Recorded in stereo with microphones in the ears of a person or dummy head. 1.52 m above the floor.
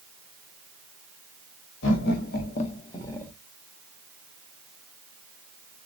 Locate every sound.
1.8 s laughter: 70° left (ahead or behind), 1.0 m; by 3.3 s 10° left (ahead or behind), 0.9 m